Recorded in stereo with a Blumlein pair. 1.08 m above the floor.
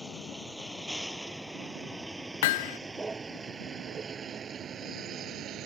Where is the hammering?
50° left.